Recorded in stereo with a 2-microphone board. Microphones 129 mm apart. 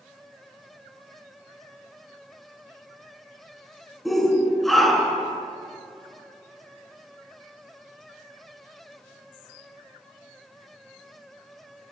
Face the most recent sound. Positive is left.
turn(degrees=0)  # may be behind; listen again after turning